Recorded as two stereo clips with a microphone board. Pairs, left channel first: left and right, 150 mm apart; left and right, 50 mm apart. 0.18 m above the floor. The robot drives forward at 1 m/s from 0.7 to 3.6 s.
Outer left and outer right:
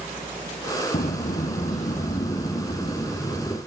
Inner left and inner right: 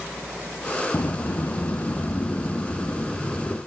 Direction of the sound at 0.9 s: 75° left (ahead or behind).